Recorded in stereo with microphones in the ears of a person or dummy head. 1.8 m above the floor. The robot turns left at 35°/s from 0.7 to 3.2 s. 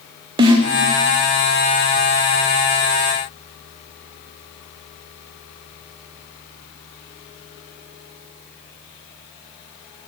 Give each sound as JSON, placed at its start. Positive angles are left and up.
{"t": 0.4, "sound": "a snare drum", "side_deg": -25, "distance_m": 0.7}